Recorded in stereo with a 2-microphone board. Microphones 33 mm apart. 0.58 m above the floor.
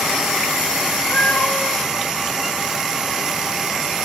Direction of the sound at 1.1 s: 80° left.